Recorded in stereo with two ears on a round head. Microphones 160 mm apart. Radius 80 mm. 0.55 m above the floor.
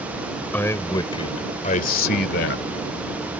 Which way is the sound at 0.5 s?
10° left (ahead or behind).